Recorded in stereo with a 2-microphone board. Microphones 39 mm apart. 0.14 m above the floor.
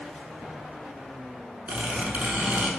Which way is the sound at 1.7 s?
40° right (ahead or behind).